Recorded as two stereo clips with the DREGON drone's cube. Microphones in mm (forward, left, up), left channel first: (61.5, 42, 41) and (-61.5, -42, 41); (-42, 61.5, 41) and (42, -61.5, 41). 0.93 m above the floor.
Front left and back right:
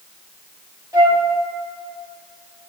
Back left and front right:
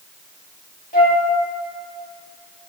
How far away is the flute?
About 1.6 m.